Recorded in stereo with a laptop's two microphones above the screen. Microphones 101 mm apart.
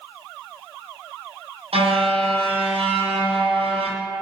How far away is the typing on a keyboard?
No typing on a keyboard in this recording.